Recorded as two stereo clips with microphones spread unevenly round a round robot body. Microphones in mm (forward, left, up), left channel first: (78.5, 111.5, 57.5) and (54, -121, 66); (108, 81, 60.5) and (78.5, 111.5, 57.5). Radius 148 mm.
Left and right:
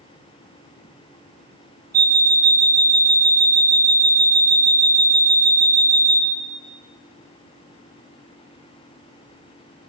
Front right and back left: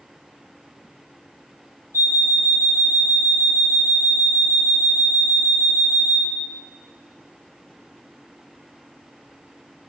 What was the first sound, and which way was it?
An alarm clock, 40° right.